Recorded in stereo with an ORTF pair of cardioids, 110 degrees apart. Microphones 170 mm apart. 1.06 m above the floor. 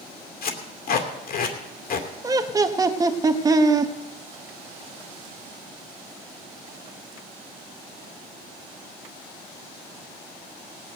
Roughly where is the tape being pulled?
Ahead left.